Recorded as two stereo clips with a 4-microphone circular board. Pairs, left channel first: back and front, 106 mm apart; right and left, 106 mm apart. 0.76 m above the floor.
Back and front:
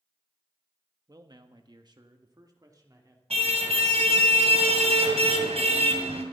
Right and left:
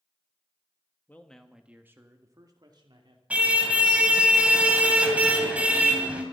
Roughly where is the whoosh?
No whoosh in this recording.